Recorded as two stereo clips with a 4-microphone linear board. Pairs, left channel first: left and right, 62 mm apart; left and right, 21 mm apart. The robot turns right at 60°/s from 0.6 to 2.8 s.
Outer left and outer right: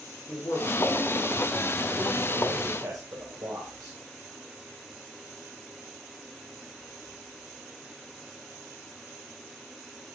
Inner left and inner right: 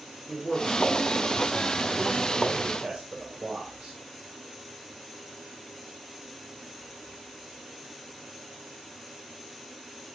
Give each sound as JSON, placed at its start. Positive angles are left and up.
{"t": 0.3, "sound": "a man speaking", "azimuth_deg": 140, "distance_m": 2.5}